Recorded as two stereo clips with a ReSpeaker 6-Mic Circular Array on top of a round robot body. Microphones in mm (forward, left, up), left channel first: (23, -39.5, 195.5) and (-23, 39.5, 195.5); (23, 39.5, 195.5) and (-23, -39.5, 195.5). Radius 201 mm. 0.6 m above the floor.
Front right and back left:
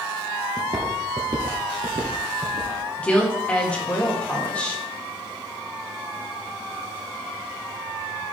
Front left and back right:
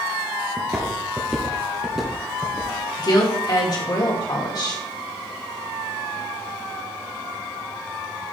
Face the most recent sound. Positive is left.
turn(degrees=15)